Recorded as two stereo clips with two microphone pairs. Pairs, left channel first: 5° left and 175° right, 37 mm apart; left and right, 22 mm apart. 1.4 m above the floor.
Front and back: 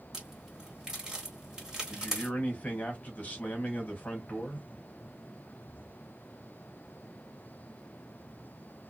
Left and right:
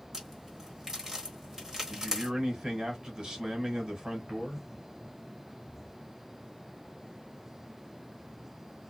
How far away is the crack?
About 1.3 m.